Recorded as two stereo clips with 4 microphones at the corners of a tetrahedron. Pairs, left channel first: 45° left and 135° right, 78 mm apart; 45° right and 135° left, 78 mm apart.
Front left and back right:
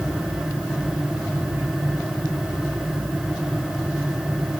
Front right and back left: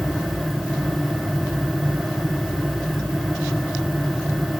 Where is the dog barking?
No dog barking in this recording.